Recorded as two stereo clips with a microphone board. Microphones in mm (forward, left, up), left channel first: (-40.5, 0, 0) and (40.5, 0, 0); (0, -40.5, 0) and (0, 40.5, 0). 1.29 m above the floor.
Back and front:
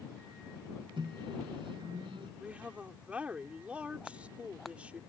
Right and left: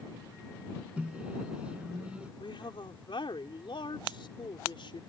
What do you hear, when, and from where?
1.0 s a microwave: 15° left
2.4 s a woman speaking: 75° right